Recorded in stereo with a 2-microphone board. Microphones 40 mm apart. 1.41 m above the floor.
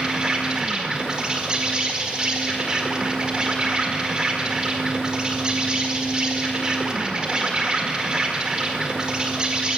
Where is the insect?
25° right (ahead or behind), 1.8 m.